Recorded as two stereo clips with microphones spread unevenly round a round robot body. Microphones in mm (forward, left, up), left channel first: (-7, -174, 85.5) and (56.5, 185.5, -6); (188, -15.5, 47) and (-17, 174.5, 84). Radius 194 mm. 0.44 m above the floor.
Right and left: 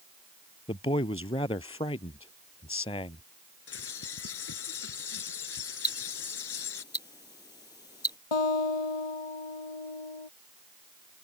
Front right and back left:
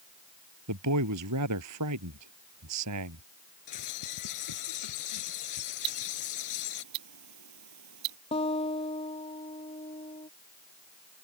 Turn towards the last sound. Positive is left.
turn(degrees=-120)